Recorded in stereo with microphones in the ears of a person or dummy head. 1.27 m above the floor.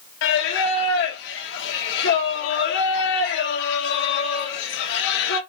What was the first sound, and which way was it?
Singing, 70° left (ahead or behind).